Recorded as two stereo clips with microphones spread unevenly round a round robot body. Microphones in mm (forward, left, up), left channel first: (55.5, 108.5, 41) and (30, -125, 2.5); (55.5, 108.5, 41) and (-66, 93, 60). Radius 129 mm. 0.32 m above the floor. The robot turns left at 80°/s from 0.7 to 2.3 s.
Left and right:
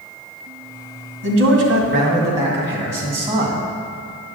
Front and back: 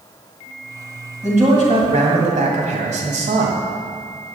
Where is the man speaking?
85° right, 2 m; by 3.6 s 170° right, 2 m.